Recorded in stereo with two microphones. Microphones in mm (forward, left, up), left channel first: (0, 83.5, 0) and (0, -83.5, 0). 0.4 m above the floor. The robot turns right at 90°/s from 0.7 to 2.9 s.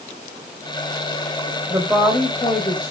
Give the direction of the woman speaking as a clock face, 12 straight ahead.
1 o'clock.